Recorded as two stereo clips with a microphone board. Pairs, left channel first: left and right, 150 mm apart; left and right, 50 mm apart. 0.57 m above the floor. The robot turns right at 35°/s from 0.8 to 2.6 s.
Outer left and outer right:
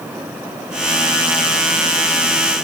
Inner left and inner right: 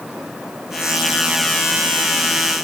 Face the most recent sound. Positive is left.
No sound to turn to.